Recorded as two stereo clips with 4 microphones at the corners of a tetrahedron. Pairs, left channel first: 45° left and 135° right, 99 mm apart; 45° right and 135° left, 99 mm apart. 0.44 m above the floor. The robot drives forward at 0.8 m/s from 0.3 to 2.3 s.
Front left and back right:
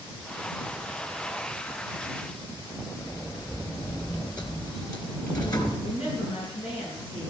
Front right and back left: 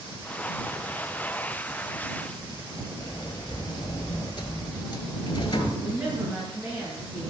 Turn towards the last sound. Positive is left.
turn(degrees=60)